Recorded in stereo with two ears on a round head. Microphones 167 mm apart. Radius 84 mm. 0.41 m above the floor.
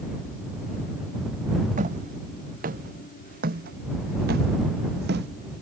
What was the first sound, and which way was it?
Footsteps, 45° right (ahead or behind).